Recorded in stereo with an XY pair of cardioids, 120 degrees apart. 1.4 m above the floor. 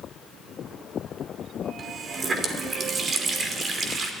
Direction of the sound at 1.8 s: 35° right.